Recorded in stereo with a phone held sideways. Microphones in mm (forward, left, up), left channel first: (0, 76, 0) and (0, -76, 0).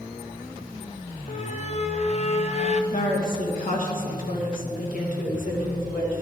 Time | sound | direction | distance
1.3 | a squeak | 45° left (ahead or behind) | 0.6 m
2.9 | a woman speaking | 65° left (ahead or behind) | 2 m